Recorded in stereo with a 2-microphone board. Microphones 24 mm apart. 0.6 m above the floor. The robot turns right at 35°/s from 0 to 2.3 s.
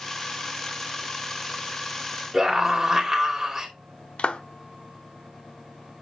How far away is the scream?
About 3 m.